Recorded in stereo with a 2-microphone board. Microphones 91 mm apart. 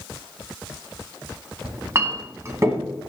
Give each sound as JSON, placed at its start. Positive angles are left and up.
{"t": 1.6, "sound": "a clink", "side_deg": -35, "distance_m": 1.2}